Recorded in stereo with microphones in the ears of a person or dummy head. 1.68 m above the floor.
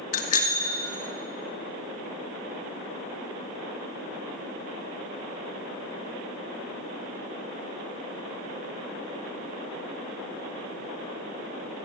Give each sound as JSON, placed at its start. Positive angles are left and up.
{"t": 0.1, "sound": "a bicycle bell", "side_deg": 55, "distance_m": 2.5}